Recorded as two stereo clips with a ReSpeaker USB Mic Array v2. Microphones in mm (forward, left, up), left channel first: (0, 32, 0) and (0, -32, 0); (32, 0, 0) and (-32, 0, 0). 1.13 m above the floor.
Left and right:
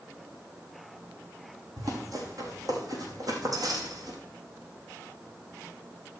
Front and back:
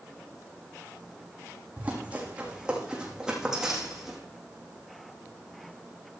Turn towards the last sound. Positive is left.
turn(degrees=-90)